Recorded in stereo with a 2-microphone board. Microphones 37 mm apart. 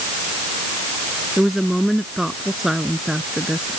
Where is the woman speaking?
5° right (ahead or behind); by 3.8 s 15° right (ahead or behind).